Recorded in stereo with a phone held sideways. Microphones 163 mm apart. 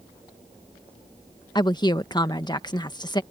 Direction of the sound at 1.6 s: 25° left (ahead or behind).